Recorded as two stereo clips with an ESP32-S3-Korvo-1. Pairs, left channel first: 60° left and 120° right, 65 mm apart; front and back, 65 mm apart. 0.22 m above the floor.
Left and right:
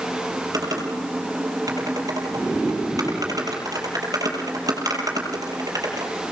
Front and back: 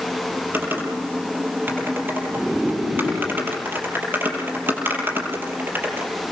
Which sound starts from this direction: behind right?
Typing on a keyboard, at 0.5 s.